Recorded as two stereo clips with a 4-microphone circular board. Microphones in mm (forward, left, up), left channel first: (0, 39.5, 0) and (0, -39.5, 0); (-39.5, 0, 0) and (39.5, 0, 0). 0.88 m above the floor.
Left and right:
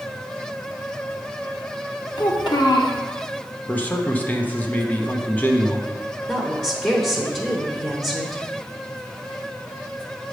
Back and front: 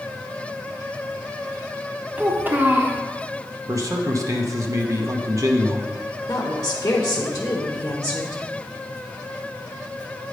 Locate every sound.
2.2 s a child speaking: 65° left, 1.3 m
3.7 s a man speaking: 25° left, 0.9 m
6.3 s a woman speaking: 170° left, 1.0 m